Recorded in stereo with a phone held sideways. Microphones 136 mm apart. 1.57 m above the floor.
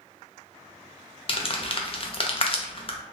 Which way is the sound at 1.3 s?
40° left (ahead or behind).